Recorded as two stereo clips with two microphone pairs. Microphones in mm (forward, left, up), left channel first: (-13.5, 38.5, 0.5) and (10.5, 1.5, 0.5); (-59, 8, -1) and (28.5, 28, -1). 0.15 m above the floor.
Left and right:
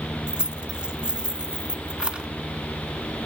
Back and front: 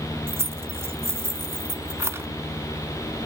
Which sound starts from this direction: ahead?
Keys jangling, at 0.3 s.